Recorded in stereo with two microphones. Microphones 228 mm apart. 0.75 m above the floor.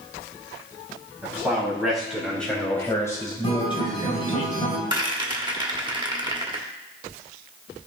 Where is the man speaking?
10° right (ahead or behind), 4 m; by 4.4 s 35° left (ahead or behind), 2.5 m.